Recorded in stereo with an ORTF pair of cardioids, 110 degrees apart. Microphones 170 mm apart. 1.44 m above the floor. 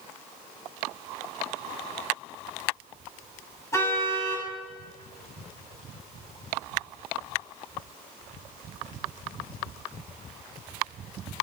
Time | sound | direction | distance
3.7 | a car horn | 20° left | 6.5 m